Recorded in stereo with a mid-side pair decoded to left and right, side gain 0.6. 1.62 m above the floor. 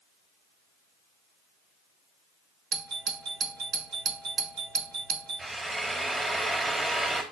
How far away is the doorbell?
About 1.8 m.